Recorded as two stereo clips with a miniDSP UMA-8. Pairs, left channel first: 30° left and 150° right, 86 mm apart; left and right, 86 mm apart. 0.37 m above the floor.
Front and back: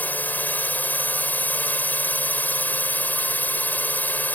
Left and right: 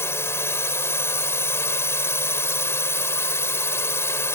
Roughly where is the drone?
Left.